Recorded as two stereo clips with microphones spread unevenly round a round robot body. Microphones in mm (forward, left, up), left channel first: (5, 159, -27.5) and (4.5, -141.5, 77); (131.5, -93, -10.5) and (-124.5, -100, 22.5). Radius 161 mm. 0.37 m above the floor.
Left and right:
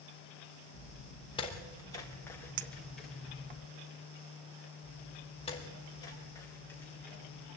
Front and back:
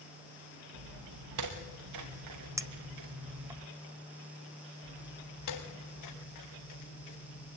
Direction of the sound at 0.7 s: 160° left.